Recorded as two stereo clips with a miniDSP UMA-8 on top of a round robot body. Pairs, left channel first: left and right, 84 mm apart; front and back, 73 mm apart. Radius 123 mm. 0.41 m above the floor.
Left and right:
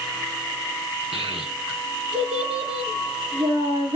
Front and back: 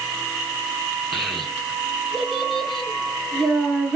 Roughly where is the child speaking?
Right.